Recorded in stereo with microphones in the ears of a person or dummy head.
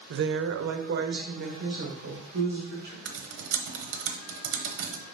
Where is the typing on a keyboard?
65° right (ahead or behind), 1.0 m.